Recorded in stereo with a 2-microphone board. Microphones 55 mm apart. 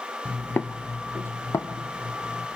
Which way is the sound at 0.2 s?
15° left (ahead or behind).